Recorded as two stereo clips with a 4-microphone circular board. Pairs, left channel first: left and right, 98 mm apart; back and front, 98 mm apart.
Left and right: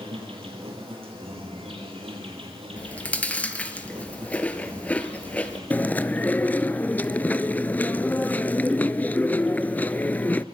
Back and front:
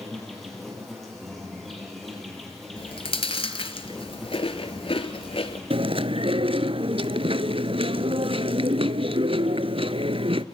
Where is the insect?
90° right, 7 m.